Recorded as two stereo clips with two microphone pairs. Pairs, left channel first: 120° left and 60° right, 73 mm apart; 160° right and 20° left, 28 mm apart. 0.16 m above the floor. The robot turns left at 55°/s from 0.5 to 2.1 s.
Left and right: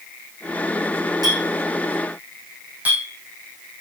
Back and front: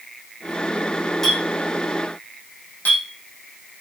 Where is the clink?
80° right, 4 m; by 3.0 s 130° right, 4 m.